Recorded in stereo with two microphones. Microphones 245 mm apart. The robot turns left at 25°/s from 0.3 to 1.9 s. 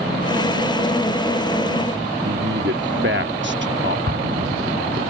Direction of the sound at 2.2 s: 45° right (ahead or behind).